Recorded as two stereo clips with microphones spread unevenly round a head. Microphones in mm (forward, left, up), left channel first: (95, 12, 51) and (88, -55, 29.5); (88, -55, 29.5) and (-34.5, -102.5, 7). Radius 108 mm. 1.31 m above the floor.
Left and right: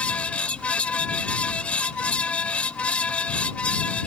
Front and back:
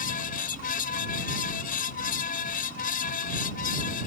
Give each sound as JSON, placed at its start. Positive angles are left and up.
{"t": 0.0, "sound": "a fan", "azimuth_deg": 15}